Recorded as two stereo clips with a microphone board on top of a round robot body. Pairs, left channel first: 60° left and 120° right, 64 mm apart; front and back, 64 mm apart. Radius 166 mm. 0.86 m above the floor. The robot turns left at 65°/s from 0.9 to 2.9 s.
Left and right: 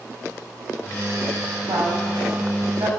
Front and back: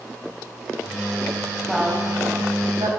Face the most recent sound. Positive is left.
turn(degrees=-165)